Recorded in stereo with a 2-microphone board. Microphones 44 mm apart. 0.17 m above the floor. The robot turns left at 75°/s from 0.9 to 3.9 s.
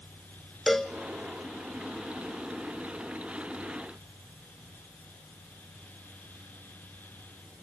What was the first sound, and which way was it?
A cowbell, 5° left (ahead or behind).